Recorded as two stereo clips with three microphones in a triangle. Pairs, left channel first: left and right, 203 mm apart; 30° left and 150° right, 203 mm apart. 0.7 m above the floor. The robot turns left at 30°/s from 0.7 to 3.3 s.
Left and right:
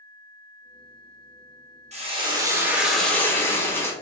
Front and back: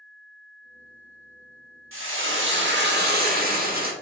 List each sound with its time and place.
1.9 s frying: 150° right, 0.9 m; by 3.9 s 170° left, 0.9 m